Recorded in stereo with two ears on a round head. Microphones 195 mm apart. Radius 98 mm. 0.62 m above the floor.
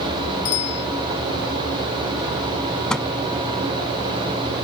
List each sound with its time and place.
0.5 s a bicycle bell: 80° left
2.9 s a microwave: 5° left (ahead or behind)